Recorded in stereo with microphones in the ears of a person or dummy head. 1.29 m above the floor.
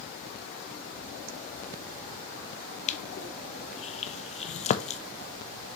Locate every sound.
2.9 s crushing: 35° left (ahead or behind), 0.5 m